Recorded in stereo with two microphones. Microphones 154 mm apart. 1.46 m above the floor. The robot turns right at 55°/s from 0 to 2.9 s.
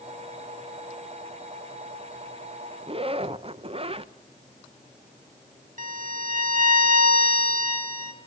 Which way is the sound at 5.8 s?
60° right (ahead or behind).